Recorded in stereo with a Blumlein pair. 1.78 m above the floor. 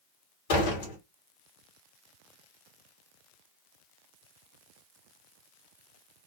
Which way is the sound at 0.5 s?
55° left.